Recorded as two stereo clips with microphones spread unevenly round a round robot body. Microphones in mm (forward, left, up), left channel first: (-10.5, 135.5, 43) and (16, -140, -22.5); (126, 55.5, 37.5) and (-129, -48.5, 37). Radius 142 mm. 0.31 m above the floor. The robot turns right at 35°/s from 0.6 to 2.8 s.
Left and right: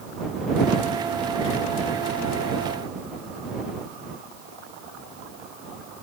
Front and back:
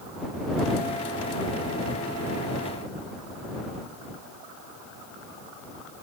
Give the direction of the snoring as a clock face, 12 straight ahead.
No snoring in this recording.